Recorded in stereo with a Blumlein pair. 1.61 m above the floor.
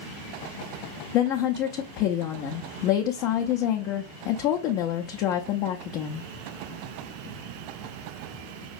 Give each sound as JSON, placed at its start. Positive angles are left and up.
{"t": 1.1, "sound": "a woman speaking", "azimuth_deg": 40, "distance_m": 0.6}